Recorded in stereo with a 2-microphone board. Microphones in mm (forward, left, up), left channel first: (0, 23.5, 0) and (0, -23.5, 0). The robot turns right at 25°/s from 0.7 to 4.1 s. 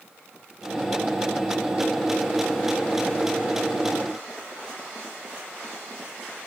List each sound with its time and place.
Only background noise.